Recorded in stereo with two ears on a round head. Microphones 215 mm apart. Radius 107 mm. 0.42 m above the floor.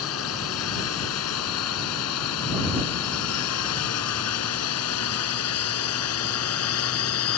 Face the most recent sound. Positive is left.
turn(degrees=70)  # may be behind; listen again after turning